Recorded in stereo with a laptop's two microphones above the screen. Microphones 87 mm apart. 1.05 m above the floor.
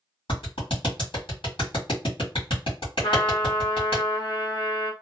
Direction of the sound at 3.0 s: 80° left.